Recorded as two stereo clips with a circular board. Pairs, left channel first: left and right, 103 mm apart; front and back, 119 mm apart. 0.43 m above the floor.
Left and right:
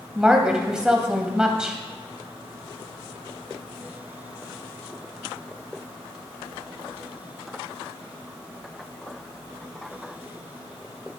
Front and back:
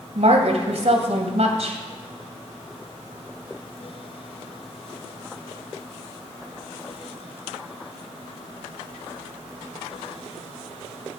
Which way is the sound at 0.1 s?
170° right.